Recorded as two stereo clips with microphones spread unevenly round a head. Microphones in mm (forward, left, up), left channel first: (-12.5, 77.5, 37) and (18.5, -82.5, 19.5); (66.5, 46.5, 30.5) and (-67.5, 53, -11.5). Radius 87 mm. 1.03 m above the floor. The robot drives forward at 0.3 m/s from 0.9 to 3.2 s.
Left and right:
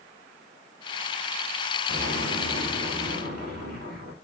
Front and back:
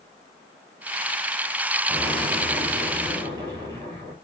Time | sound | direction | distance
1.9 | an explosion | 105° right | 1.9 m